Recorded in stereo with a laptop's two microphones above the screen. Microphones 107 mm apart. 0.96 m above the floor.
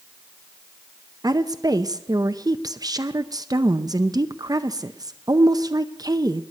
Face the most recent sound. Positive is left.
turn(degrees=-35)  # may be behind; listen again after turning